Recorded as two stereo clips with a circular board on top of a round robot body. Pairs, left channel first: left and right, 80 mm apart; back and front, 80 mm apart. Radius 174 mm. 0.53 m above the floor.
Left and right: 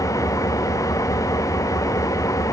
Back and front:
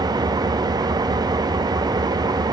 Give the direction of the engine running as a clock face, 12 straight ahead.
11 o'clock.